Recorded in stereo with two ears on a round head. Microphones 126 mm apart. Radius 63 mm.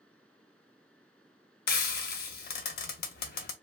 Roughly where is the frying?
Left.